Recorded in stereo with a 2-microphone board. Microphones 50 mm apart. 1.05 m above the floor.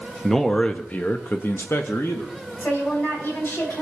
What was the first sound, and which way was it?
A man speaking, 5° left (ahead or behind).